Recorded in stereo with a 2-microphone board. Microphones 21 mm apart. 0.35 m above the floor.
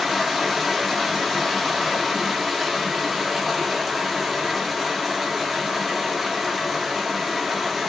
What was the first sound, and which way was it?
Running water, 5° right (ahead or behind).